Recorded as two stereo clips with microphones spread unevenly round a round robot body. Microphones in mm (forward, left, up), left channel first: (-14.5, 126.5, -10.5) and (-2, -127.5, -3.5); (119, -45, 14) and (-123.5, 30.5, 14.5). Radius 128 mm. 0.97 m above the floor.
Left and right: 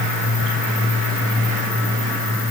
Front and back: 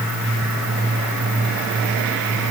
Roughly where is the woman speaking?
I don't hear a woman speaking.